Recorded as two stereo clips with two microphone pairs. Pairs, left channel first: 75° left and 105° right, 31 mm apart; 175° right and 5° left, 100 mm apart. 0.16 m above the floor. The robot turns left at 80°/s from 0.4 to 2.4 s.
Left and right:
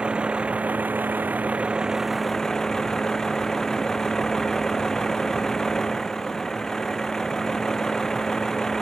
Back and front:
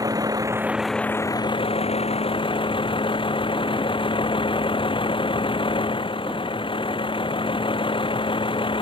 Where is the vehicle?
50° right; by 8.8 s 150° left.